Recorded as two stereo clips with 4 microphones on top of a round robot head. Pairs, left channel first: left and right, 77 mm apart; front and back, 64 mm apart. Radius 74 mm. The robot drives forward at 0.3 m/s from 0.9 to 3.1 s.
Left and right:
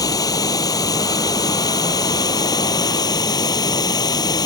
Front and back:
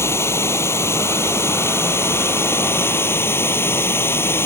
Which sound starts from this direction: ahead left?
Running water, at 0.0 s.